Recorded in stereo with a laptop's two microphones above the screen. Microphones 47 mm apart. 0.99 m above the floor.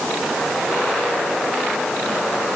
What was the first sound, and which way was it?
Only background noise.